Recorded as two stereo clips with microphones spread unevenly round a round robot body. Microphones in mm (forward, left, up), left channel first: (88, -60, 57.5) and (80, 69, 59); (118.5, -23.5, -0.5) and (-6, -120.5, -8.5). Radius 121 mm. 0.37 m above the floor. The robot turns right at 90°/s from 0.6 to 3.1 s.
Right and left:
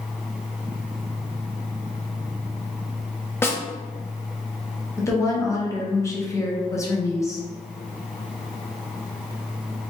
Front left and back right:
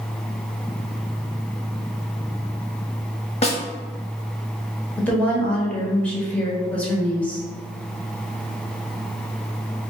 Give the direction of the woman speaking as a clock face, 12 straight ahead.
1 o'clock.